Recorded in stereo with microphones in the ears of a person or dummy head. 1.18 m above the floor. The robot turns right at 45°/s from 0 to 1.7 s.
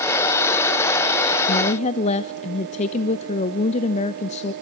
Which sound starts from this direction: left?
A woman speaking, at 1.5 s.